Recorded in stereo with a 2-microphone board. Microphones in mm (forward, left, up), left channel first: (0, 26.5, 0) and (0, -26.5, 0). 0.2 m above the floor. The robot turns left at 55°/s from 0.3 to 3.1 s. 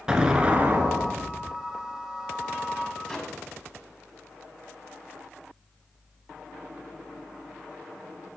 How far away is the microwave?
About 1.1 m.